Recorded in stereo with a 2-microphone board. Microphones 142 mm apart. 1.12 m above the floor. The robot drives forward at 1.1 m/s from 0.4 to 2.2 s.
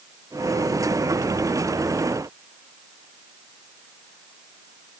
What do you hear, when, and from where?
Only background noise.